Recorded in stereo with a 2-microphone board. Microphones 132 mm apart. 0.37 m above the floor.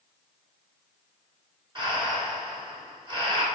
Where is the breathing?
35° right (ahead or behind), 3.5 m.